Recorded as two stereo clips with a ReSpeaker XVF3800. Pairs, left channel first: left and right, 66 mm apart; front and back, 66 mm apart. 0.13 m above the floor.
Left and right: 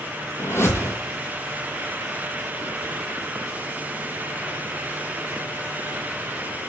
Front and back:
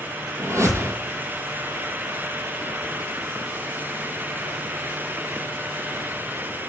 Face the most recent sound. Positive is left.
turn(degrees=140)